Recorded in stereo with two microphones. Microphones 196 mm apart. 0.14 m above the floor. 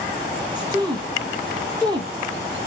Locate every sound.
0.6 s a woman speaking: 20° right (ahead or behind), 1.1 m